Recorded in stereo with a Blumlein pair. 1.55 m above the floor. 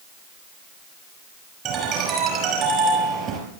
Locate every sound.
1.6 s a ringtone: 30° right, 5.5 m